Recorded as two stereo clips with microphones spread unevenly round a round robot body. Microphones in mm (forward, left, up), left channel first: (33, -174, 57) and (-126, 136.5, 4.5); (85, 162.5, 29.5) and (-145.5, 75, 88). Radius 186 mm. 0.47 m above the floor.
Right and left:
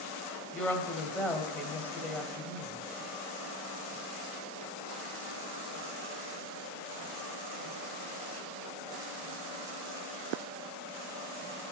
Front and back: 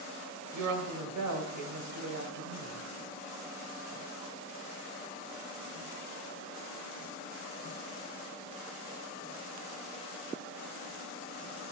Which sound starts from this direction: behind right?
A woman speaking, at 0.5 s.